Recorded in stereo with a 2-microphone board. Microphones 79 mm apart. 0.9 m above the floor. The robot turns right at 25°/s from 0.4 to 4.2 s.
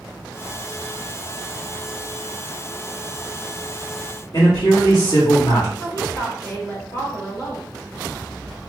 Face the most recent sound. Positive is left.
turn(degrees=40)  # may be behind; listen again after turning